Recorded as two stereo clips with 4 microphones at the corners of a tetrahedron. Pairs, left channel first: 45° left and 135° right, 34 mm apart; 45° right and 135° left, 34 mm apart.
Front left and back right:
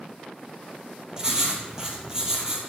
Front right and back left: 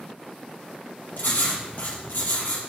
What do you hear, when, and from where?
1.2 s writing: 65° right, 3 m